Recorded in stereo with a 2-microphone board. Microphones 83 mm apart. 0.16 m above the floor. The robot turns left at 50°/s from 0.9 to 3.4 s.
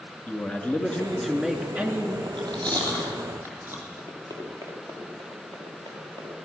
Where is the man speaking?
25° left, 2 m; by 2.2 s 40° right, 2 m.